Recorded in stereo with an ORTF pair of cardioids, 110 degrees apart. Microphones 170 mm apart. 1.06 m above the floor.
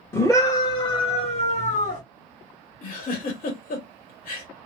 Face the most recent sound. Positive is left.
turn(degrees=60)